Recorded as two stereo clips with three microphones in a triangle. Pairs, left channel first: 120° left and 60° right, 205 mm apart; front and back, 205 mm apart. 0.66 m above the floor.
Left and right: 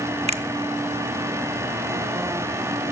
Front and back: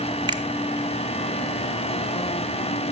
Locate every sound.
0.3 s a finger snap: 115° right, 0.7 m